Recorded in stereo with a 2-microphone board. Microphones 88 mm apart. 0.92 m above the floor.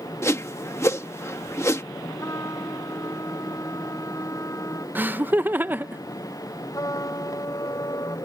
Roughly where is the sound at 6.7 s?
Left.